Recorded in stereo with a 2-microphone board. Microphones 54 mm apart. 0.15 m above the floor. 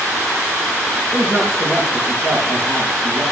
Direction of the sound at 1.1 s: 80° right.